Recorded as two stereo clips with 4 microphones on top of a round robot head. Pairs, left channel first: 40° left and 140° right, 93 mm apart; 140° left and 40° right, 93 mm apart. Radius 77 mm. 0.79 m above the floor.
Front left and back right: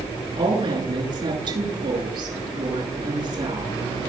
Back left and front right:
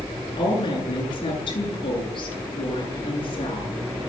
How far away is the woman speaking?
About 9.5 m.